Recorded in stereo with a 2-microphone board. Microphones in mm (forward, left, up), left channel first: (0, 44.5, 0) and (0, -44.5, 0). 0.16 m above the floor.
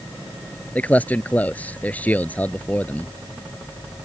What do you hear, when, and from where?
0.8 s a man speaking: 20° left (ahead or behind)